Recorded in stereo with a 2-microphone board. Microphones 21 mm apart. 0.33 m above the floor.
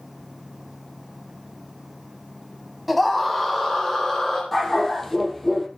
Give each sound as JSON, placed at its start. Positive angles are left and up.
{"t": 2.9, "sound": "a scream", "side_deg": -5, "distance_m": 1.8}
{"t": 4.5, "sound": "a dog barking", "side_deg": 5, "distance_m": 3.5}